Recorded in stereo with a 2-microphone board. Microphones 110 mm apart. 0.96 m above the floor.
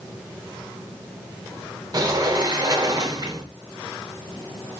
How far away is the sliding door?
About 0.7 m.